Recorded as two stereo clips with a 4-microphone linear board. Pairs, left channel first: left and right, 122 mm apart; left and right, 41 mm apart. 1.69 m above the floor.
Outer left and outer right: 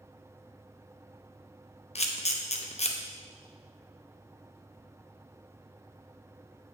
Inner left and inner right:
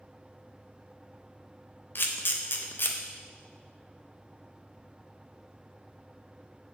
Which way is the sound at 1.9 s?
60° left (ahead or behind).